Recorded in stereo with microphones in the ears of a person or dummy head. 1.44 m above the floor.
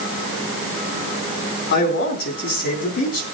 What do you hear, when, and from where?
1.7 s a man speaking: 45° left (ahead or behind), 4 m